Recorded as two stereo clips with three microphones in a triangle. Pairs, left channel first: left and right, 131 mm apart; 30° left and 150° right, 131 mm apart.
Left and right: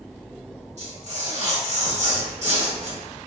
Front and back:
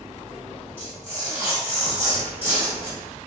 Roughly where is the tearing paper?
Right.